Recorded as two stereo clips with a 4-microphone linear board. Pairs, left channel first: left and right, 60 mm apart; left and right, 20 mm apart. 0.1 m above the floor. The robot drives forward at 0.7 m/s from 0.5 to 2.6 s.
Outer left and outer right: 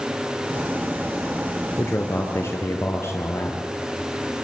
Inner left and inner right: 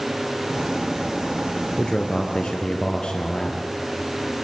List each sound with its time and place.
1.8 s a man speaking: 45° left (ahead or behind), 1.6 m